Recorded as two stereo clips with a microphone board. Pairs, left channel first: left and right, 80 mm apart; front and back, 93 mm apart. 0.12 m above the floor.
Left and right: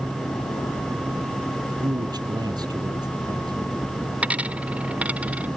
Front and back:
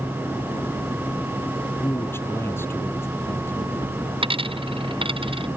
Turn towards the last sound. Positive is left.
turn(degrees=-165)